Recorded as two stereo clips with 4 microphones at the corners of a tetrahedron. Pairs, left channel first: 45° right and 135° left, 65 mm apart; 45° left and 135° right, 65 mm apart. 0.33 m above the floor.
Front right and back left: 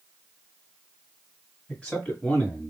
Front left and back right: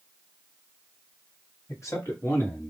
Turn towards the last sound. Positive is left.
turn(degrees=15)